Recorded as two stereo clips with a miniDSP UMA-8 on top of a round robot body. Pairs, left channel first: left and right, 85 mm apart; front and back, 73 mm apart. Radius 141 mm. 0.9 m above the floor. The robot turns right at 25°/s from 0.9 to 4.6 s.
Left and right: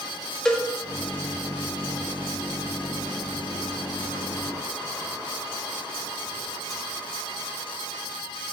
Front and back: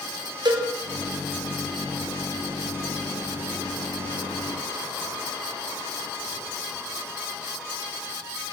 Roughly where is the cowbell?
Behind.